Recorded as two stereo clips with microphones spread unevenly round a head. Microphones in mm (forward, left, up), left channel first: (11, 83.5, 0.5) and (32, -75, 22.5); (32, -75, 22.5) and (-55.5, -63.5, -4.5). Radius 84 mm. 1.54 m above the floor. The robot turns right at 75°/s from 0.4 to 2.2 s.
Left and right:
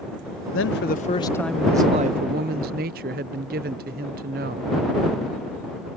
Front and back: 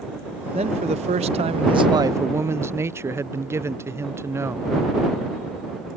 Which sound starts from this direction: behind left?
A man speaking, at 0.5 s.